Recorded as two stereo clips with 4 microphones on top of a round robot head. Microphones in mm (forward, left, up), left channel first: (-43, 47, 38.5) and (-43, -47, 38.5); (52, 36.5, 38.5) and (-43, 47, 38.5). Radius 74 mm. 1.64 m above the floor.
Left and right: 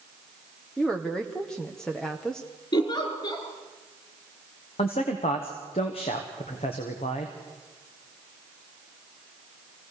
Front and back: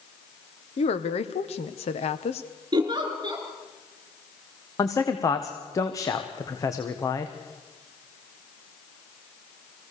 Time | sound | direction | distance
0.8 | a woman speaking | 5° left | 1.3 m
2.7 | a giggle | 130° left | 3.5 m
4.8 | a man speaking | 50° left | 1.4 m